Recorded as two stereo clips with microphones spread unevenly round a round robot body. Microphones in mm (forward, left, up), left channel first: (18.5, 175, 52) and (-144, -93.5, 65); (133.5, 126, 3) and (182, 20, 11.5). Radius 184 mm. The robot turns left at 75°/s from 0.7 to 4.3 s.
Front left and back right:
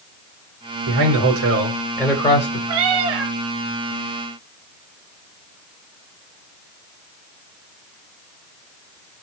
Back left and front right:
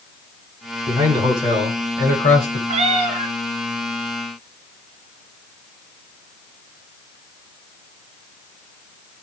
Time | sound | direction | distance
0.9 | a man speaking | 115° right | 3.5 m
2.7 | a cat meowing | 75° right | 1.2 m